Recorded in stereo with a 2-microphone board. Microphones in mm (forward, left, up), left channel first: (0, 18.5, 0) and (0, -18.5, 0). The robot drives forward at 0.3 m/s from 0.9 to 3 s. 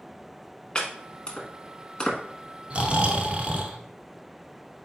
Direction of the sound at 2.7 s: 35° right (ahead or behind).